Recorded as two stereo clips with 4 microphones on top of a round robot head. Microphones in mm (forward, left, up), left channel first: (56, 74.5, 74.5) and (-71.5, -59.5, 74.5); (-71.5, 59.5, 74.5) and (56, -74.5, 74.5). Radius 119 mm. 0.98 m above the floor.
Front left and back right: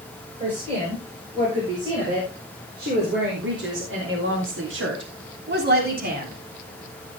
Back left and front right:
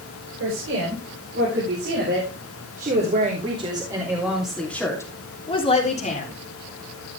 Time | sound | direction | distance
0.4 | a woman speaking | 70° right | 6.5 m